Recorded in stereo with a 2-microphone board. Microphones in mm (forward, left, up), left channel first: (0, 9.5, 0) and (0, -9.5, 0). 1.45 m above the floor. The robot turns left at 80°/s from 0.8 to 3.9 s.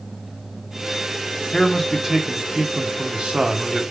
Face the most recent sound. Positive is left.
turn(degrees=-170)